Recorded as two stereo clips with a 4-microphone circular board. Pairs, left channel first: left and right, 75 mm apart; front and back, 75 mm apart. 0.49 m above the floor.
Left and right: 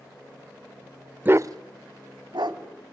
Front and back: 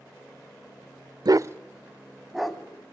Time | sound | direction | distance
1.2 | a dog barking | 155° right | 0.5 m